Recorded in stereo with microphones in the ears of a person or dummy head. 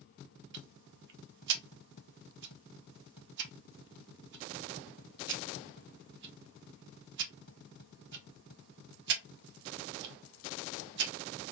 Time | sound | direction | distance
0.5 | ticking | 65° right (ahead or behind) | 0.9 m